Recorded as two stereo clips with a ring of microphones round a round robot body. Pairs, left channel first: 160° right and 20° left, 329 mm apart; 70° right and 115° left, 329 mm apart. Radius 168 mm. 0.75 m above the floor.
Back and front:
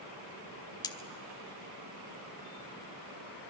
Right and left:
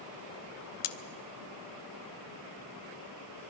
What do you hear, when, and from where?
0.8 s cutlery clinking: 80° right, 1.0 m